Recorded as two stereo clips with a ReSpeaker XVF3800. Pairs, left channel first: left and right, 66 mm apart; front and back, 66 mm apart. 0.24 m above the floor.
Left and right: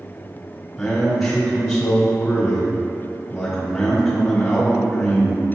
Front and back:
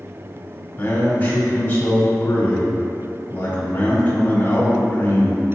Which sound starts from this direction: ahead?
A man speaking, at 0.8 s.